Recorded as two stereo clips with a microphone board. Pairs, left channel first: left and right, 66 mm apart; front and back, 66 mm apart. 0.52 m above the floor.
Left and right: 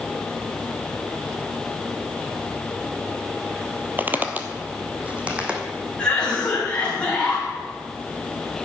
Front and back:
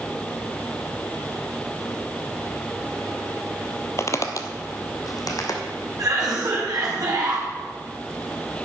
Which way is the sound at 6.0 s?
165° left.